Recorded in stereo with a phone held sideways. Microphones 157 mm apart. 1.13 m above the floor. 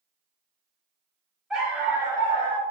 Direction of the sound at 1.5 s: 5° right (ahead or behind).